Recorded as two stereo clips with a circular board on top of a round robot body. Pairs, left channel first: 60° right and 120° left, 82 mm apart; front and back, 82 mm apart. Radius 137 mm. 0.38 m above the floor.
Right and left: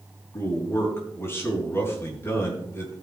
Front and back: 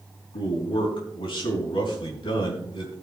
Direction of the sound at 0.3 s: Straight ahead.